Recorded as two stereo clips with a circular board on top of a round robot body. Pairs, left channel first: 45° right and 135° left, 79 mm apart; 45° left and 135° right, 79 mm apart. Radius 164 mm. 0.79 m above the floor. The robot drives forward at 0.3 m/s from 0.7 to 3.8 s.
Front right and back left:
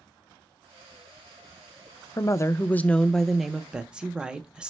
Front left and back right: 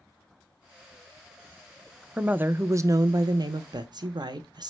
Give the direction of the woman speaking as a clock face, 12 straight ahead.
2 o'clock.